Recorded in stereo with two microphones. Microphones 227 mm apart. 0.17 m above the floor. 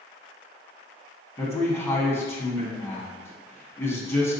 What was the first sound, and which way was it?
A man speaking, 10° left (ahead or behind).